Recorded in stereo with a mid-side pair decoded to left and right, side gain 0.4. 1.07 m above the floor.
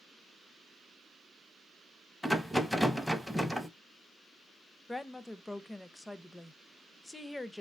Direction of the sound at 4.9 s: 20° left.